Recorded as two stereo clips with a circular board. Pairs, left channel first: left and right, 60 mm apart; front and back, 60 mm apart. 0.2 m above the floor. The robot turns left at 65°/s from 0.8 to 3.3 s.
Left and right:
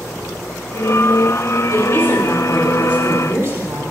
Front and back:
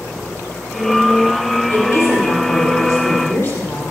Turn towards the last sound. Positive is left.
turn(degrees=-40)